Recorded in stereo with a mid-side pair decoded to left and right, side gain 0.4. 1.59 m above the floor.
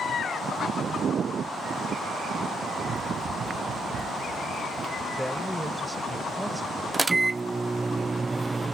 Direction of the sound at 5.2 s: 5° right.